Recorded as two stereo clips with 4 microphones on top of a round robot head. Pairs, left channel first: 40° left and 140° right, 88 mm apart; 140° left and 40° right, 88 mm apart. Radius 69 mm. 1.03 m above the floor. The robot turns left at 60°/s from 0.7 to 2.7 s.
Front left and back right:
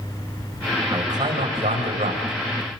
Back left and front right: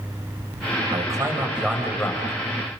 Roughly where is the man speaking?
Right.